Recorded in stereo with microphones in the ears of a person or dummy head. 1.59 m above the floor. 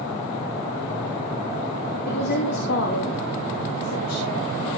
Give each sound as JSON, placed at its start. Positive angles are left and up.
{"t": 2.0, "sound": "a woman speaking", "side_deg": 50, "distance_m": 2.0}